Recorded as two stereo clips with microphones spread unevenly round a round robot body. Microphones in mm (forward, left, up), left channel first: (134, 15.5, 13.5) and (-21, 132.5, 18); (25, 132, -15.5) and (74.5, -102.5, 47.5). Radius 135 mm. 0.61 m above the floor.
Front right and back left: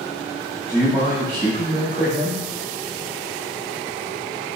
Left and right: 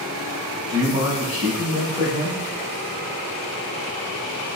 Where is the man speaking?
145° right, 1.6 m.